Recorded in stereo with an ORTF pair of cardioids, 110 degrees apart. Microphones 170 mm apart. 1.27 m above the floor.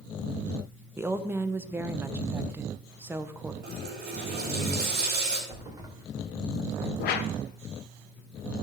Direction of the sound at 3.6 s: 70° right.